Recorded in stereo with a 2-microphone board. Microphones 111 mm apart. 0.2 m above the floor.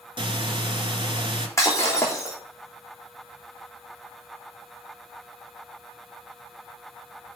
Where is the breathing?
50° right (ahead or behind), 2.5 m.